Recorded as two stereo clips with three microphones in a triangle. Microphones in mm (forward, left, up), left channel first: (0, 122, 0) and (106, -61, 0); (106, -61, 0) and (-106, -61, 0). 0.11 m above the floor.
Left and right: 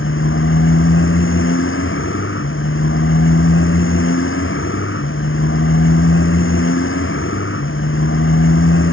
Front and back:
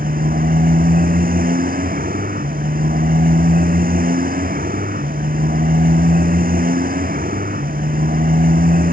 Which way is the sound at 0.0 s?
135° left.